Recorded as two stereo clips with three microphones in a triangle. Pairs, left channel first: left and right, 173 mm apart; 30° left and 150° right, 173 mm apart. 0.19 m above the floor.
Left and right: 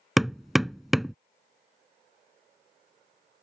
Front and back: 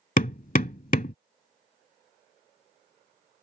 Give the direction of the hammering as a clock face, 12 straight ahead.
12 o'clock.